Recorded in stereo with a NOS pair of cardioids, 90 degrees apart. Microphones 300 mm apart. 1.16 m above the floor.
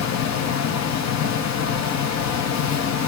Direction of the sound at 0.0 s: 65° left.